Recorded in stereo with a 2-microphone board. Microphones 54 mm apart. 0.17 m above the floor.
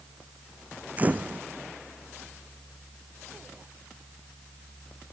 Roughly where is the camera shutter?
Right.